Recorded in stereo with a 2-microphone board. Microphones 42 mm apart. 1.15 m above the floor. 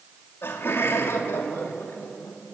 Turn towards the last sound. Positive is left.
turn(degrees=75)  # may be behind; listen again after turning